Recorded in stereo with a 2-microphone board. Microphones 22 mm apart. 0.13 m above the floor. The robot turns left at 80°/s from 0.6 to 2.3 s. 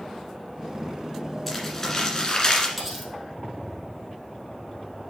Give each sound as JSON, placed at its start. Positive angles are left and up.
{"t": 1.5, "sound": "crumpling", "azimuth_deg": 175, "distance_m": 1.7}
{"t": 2.8, "sound": "cutlery clinking", "side_deg": 0, "distance_m": 2.0}